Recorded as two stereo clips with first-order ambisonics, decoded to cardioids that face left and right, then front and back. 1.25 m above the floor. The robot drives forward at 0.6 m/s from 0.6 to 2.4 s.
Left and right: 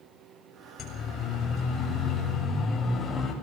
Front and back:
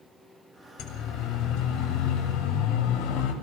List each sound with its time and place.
0.8 s a siren: 30° left, 7.5 m; by 3.3 s 10° left, 7 m